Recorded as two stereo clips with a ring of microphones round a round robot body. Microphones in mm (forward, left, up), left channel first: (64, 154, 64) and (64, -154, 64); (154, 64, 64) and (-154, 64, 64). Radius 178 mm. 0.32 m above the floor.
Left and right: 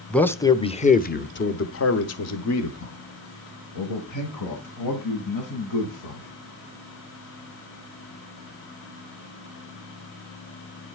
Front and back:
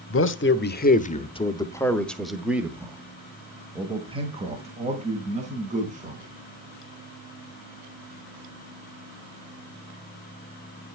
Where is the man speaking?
5° left, 1.2 m; by 6.3 s 115° left, 3.5 m.